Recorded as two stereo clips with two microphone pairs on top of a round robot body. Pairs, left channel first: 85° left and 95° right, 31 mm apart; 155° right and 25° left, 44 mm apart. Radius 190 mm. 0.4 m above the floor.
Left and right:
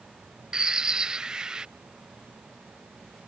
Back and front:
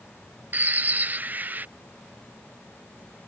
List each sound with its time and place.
0.5 s a bird: 30° right